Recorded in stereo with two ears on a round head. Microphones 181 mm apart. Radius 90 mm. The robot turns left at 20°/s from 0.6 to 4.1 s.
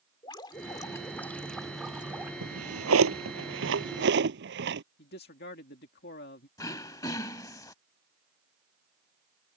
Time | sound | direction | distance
0.2 | dripping | 25° left | ?
2.4 | a drawer | 85° right | ?
5.0 | a man speaking | 55° left (ahead or behind) | ?
6.6 | throat clearing | 20° left (ahead or behind) | ?